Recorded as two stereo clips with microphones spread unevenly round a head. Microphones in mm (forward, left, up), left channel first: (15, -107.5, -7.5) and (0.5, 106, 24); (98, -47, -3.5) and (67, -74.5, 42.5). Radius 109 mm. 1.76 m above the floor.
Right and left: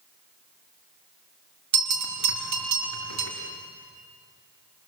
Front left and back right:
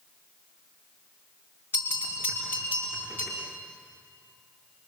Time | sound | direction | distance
1.7 | a bell | 100° left | 3.5 m